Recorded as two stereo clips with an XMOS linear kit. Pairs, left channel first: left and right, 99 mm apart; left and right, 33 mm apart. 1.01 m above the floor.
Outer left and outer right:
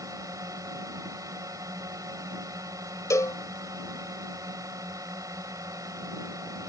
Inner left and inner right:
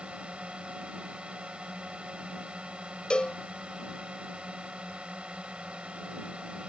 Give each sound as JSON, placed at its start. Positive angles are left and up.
{"t": 0.0, "sound": "a drone", "side_deg": -35}
{"t": 3.1, "sound": "a cowbell", "side_deg": 35}